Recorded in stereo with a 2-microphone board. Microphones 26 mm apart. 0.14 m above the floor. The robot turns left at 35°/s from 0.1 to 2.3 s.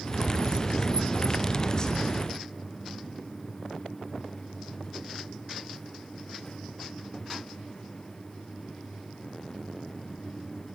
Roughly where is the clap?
I don't hear a clap.